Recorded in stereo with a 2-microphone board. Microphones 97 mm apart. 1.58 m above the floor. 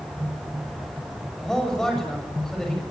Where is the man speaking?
5° left (ahead or behind), 7 m.